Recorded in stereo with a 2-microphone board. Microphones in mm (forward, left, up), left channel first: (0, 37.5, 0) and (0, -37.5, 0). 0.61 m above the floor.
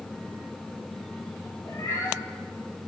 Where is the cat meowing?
50° left (ahead or behind), 8.5 m.